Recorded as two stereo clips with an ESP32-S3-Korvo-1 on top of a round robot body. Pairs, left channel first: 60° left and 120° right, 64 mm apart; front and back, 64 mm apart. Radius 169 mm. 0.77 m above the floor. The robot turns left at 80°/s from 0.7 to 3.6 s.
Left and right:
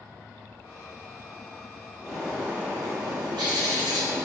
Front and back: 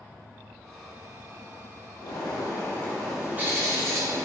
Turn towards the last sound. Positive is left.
turn(degrees=-130)